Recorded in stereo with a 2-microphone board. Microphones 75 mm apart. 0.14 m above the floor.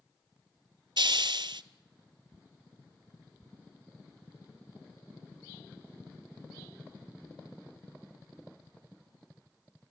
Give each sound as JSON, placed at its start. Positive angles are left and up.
{"t": 1.0, "sound": "a hiss", "side_deg": -75, "distance_m": 0.6}